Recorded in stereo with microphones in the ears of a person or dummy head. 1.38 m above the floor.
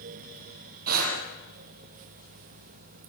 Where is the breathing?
50° right (ahead or behind), 6.5 m.